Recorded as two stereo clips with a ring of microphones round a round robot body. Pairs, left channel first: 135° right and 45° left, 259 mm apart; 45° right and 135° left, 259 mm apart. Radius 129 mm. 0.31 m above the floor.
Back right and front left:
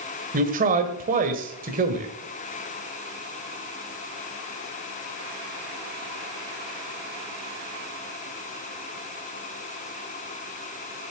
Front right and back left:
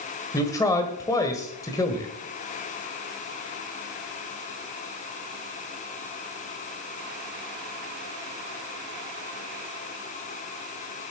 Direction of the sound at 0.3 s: 20° left.